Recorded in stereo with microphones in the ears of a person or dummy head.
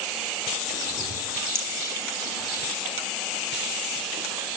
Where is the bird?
25° left (ahead or behind), 6.5 m.